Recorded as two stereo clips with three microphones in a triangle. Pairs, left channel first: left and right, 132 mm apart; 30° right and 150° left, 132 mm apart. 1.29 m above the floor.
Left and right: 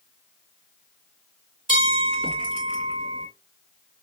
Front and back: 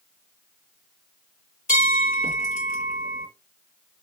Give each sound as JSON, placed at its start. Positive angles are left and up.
{"t": 1.7, "sound": "a bell", "azimuth_deg": -45, "distance_m": 2.0}